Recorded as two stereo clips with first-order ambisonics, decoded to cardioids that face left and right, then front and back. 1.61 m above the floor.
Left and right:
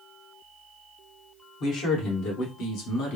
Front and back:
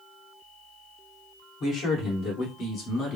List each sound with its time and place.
1.6 s a man speaking: 50° left, 2.5 m; by 3.2 s 60° left, 1.4 m